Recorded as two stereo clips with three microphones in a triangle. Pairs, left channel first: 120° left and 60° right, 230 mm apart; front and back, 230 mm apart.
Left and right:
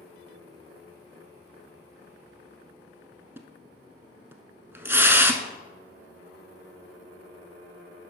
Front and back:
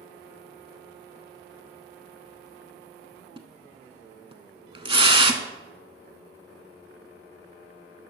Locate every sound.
3.4 s a splash: 130° right, 0.6 m